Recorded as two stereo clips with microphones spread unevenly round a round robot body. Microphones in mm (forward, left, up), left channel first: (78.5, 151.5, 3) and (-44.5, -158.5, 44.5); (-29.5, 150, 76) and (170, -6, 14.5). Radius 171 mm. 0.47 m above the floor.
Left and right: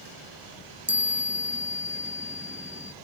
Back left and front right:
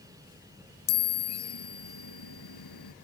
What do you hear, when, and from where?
0.9 s a chime: 165° left